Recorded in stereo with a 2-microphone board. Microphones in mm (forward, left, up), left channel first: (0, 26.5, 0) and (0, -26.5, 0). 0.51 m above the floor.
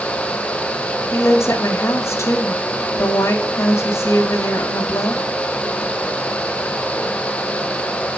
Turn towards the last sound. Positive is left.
turn(degrees=65)  # may be behind; listen again after turning